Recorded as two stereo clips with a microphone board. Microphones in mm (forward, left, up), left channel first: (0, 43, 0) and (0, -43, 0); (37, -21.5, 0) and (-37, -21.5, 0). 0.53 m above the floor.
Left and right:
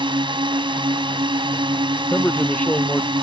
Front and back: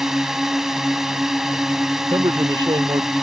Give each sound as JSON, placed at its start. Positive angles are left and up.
{"t": 0.0, "sound": "a drone", "azimuth_deg": -95}
{"t": 2.1, "sound": "a man speaking", "azimuth_deg": 160}